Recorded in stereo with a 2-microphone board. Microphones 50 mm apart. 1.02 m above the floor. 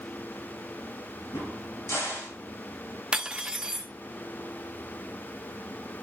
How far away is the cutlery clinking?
About 0.7 m.